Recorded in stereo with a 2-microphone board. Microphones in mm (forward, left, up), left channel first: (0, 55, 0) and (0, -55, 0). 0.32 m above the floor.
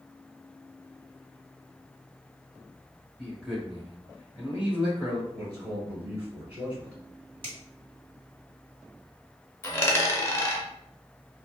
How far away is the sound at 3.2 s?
About 1.1 m.